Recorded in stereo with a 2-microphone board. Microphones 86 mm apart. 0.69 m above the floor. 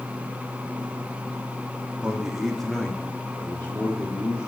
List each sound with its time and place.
2.0 s a man speaking: 10° right (ahead or behind), 1.1 m; by 4.5 s 35° left (ahead or behind), 1.8 m